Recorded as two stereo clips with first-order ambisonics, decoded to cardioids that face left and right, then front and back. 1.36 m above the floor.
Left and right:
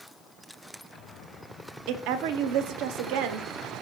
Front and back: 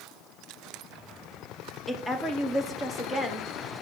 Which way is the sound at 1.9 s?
85° right.